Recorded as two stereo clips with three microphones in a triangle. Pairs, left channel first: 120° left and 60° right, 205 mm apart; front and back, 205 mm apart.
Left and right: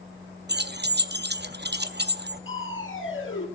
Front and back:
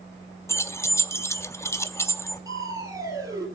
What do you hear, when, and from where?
0.5 s keys jangling: 75° right, 0.6 m
2.5 s crushing: 105° left, 3 m